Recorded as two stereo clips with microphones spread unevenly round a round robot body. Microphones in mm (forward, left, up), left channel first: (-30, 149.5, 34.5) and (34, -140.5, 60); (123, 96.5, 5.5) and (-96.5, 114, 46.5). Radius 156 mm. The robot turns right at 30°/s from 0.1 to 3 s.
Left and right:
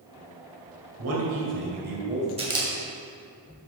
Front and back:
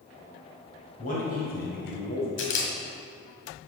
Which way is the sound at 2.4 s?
5° right.